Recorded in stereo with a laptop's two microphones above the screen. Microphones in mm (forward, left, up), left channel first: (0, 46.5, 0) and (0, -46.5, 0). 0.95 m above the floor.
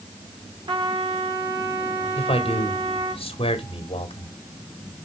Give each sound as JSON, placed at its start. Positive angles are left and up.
{"t": 0.7, "sound": "a trumpet", "side_deg": -55, "distance_m": 2.5}
{"t": 2.1, "sound": "a man speaking", "side_deg": 70, "distance_m": 2.5}